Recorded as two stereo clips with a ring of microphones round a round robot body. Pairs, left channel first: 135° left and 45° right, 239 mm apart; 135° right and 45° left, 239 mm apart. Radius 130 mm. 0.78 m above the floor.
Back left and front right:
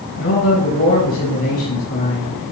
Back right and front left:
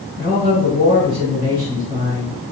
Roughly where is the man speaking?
Left.